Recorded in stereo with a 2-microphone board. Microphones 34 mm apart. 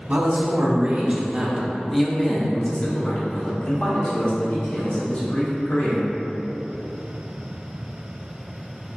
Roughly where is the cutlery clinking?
I don't hear cutlery clinking.